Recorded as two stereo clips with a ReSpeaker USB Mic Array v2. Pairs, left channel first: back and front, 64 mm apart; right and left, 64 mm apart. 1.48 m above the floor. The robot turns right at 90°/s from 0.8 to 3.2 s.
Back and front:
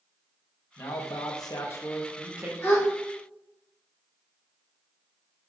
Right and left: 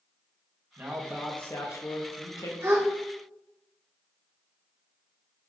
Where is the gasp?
120° left, 1.0 m; by 2.9 s 140° left, 1.0 m.